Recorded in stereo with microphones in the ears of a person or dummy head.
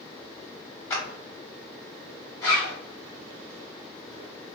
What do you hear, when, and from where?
0.9 s a clap: 15° left (ahead or behind), 1.1 m
2.4 s a zipper: 10° left (ahead or behind), 1.1 m